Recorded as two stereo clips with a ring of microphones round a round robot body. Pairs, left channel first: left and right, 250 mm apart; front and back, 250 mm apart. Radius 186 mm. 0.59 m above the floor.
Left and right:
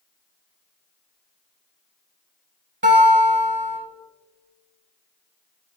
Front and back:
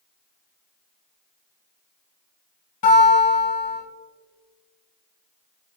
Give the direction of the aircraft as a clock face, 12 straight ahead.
I don't hear an aircraft.